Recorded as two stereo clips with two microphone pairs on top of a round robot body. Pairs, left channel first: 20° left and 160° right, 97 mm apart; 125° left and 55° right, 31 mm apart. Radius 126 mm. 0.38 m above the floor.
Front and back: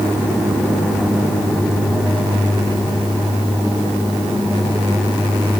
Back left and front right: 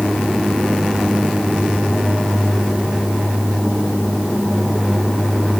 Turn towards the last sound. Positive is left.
No sound to turn to.